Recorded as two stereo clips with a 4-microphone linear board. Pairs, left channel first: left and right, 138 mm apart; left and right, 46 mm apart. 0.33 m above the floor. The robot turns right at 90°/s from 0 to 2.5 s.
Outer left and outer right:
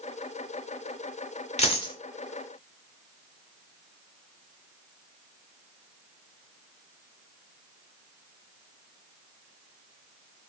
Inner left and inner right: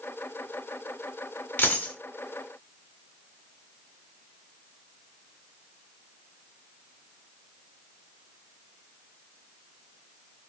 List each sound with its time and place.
1.6 s a dropped coin: 115° left, 0.7 m; by 1.9 s 145° left, 0.7 m